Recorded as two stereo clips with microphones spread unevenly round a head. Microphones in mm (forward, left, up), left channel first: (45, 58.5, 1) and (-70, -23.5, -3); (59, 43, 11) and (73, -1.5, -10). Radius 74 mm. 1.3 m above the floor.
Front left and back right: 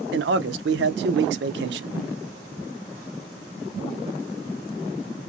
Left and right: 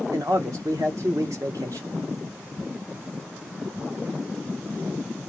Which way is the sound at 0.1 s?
145° right.